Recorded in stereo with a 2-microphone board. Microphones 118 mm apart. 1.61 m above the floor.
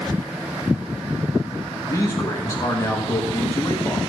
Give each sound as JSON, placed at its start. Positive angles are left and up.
{"t": 1.9, "sound": "a man speaking", "side_deg": 25, "distance_m": 1.6}